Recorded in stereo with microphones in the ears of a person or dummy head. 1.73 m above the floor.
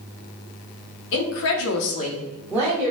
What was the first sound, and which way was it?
A woman speaking, 65° left (ahead or behind).